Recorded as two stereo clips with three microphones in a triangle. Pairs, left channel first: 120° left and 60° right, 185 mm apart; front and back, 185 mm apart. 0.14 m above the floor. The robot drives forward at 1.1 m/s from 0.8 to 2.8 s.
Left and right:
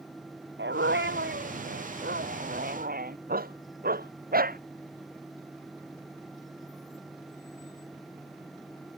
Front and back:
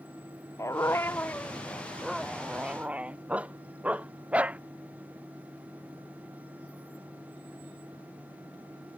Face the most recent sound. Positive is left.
turn(degrees=-100)